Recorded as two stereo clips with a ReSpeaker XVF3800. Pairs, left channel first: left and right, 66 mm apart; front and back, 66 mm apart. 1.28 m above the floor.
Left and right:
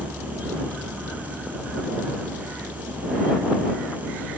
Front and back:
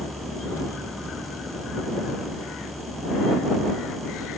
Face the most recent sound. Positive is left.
turn(degrees=-125)